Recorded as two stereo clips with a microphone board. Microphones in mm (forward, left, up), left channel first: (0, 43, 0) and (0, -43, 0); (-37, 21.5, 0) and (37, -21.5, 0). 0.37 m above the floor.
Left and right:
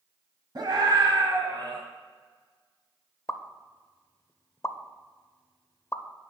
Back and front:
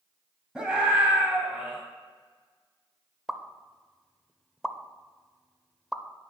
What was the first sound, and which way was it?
A scream, 110° right.